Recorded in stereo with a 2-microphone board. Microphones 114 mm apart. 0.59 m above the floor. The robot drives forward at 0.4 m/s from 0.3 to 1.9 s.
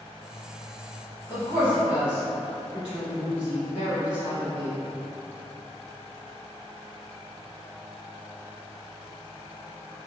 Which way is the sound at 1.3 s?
15° right (ahead or behind).